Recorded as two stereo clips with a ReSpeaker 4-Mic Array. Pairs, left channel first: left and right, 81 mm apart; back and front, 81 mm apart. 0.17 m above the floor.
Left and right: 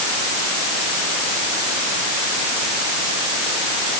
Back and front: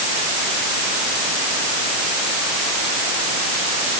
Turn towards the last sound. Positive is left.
No sound to turn to.